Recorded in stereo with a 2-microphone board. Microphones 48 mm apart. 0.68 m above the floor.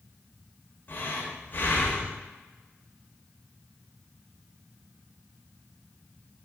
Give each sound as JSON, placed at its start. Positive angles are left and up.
{"t": 0.9, "sound": "breathing", "side_deg": 40, "distance_m": 0.9}